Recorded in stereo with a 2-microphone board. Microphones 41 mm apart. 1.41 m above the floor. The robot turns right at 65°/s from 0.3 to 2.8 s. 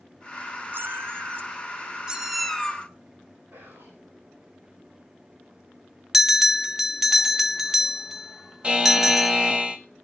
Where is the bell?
10° right (ahead or behind), 0.9 m.